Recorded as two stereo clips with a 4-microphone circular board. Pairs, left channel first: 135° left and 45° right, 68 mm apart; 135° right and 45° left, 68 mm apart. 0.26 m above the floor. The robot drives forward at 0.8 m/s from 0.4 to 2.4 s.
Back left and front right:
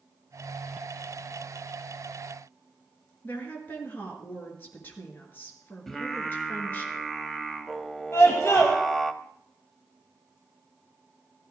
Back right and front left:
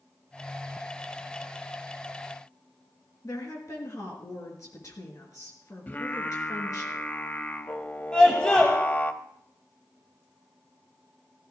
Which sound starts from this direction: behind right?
Singing, at 5.9 s.